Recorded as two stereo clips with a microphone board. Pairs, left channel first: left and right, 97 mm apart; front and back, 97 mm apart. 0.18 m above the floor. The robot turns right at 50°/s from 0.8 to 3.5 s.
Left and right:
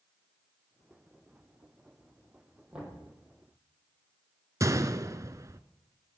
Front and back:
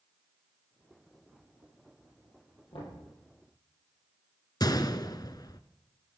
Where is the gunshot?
40° right, 0.7 m.